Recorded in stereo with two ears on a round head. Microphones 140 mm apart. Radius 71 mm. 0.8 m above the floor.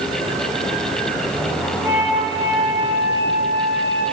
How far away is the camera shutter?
No camera shutter in this recording.